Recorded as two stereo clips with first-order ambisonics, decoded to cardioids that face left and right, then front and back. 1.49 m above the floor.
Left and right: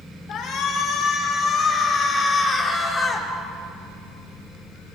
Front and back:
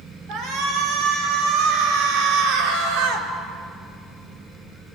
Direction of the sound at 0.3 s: 135° left.